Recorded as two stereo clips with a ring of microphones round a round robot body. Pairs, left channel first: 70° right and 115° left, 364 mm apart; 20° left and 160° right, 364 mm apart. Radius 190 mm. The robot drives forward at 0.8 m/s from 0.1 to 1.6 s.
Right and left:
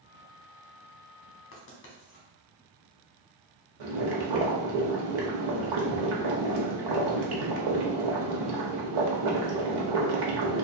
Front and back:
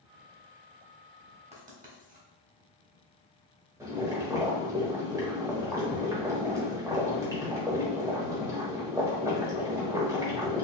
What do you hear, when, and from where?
1.5 s writing: 95° right, 1.2 m; by 2.3 s 100° right, 1.2 m
3.8 s boiling: 120° left, 1.0 m